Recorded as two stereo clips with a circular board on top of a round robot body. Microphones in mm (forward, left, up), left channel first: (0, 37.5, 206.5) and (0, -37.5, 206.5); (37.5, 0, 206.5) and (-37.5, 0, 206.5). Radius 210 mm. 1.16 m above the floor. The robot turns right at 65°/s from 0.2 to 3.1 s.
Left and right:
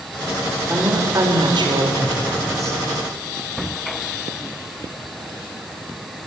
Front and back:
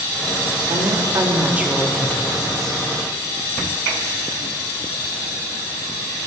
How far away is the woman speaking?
About 4 m.